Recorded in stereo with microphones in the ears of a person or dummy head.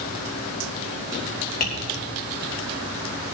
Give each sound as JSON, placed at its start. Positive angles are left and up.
{"t": 1.6, "sound": "tapping", "side_deg": 45, "distance_m": 3.0}